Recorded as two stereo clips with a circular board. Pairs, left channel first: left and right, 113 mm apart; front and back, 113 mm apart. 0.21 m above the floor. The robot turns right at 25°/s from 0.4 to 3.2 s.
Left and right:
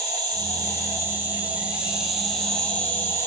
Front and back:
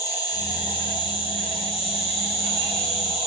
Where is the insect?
45° right, 0.8 m; by 3.3 s 25° left, 0.8 m.